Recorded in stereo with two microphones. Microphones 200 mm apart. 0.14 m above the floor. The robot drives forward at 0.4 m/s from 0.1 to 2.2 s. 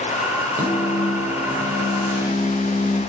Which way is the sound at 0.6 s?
10° right (ahead or behind).